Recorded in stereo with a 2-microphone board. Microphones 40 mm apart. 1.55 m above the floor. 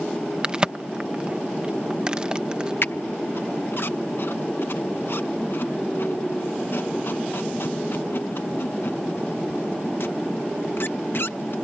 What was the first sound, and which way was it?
A crack, 20° right (ahead or behind).